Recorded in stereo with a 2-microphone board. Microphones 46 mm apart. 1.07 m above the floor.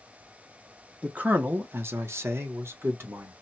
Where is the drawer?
I don't hear a drawer.